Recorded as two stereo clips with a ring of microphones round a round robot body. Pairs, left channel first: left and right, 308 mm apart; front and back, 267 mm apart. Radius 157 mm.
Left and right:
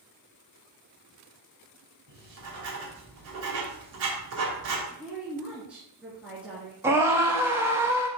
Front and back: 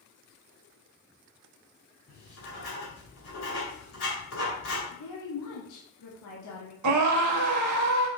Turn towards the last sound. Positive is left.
turn(degrees=-170)